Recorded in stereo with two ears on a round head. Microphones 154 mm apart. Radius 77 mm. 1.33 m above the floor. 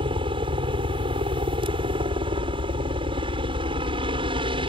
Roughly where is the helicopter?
Right.